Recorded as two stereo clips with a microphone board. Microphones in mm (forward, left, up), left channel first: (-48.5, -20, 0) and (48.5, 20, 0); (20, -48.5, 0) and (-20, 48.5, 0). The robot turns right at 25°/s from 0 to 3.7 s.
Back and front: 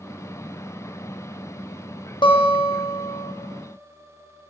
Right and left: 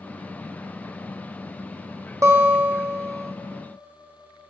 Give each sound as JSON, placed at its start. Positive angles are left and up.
{"t": 2.2, "sound": "a guitar", "azimuth_deg": 170, "distance_m": 0.7}